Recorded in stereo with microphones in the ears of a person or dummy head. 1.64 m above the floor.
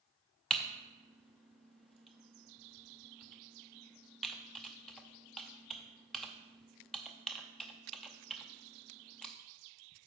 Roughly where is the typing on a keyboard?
Centre.